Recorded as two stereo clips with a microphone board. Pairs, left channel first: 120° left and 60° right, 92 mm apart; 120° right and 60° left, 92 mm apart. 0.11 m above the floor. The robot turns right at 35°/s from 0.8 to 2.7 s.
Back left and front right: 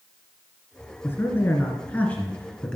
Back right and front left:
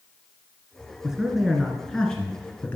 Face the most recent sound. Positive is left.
turn(degrees=-175)